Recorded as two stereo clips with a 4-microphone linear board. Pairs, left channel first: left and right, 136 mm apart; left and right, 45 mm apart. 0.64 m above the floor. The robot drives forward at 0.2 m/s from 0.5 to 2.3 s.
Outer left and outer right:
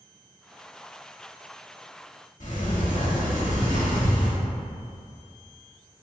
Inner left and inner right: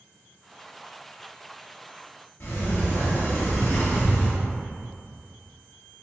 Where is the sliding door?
65° left (ahead or behind), 1.0 m.